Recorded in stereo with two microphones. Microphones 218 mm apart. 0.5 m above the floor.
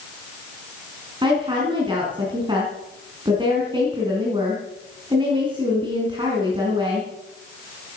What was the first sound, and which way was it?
A woman speaking, 20° right (ahead or behind).